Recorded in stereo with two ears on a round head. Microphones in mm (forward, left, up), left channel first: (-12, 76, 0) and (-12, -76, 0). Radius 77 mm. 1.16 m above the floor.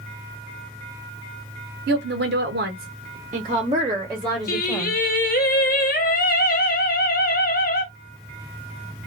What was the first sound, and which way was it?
A woman speaking, 70° right (ahead or behind).